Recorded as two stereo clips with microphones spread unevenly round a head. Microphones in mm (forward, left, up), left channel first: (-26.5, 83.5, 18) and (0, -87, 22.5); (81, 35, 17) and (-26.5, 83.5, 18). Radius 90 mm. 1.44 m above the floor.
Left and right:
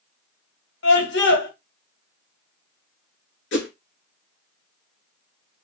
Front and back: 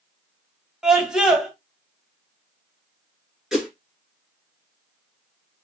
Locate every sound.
0.8 s a scream: 70° left, 1.8 m
3.5 s a whoosh: 65° left, 3 m